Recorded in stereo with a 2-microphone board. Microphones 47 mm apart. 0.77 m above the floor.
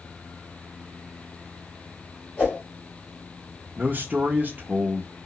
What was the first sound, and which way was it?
A whoosh, 35° left (ahead or behind).